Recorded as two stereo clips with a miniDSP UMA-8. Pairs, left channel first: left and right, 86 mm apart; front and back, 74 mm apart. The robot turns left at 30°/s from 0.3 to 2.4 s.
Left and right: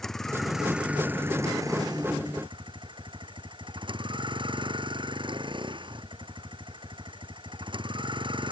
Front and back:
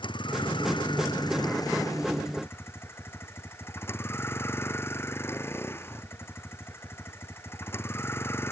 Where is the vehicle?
5° left; by 8.5 s 60° right.